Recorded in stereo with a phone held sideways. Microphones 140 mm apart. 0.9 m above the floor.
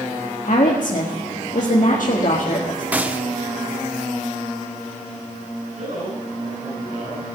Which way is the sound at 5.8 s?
65° right (ahead or behind).